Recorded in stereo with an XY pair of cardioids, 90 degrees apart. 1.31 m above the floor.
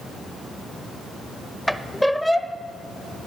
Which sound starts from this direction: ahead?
A squeak, at 1.7 s.